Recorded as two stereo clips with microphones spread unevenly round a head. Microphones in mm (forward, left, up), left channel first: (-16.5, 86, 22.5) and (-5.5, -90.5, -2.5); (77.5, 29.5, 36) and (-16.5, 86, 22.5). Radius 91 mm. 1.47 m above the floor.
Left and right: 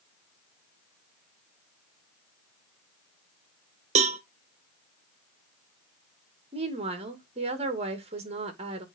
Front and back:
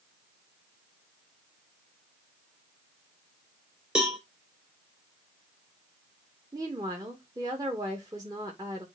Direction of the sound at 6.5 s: 145° right.